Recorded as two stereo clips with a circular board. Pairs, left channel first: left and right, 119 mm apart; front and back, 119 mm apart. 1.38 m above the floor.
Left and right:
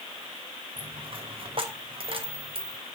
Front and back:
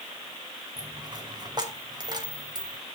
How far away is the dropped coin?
About 3 m.